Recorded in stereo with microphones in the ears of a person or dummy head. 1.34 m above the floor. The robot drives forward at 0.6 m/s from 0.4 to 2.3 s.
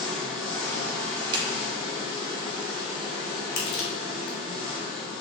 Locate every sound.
0.0 s an engine running: 5° left (ahead or behind), 1.4 m; by 5.2 s 10° left (ahead or behind), 0.8 m
1.3 s a clap: 30° right (ahead or behind), 0.6 m; by 1.5 s 35° right (ahead or behind), 0.5 m
3.6 s crushing: 55° left (ahead or behind), 1.0 m